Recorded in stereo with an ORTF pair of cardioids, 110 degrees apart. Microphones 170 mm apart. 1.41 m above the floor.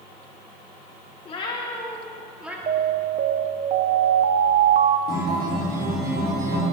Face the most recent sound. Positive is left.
turn(degrees=-65)